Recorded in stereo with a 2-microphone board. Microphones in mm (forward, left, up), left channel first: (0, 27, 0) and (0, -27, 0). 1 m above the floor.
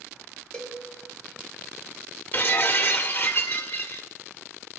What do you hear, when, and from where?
0.5 s a cowbell: 10° left (ahead or behind), 1.2 m
2.3 s breaking glass: 40° left (ahead or behind), 1.0 m